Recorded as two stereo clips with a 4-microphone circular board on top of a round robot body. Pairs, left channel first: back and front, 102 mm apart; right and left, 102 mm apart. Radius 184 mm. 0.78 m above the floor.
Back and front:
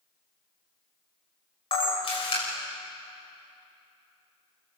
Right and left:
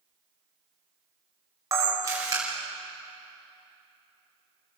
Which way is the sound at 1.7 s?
150° left.